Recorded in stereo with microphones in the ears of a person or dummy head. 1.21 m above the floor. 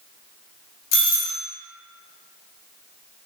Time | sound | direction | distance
0.9 | a doorbell | 65° left (ahead or behind) | 1.3 m